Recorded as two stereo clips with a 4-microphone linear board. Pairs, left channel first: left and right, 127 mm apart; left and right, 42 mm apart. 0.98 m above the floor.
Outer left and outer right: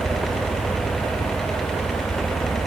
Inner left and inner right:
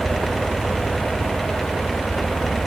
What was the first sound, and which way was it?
Only background noise.